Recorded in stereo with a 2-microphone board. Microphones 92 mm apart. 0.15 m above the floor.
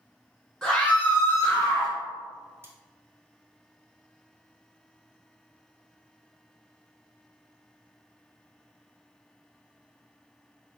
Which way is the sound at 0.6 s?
10° left (ahead or behind).